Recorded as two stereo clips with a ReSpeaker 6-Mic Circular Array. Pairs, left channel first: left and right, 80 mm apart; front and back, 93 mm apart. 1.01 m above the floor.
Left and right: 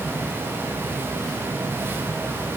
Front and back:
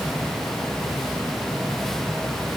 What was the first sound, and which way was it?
Only background noise.